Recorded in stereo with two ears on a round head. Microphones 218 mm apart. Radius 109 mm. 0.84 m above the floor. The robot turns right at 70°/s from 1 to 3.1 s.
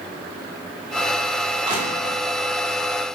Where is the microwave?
I don't hear a microwave.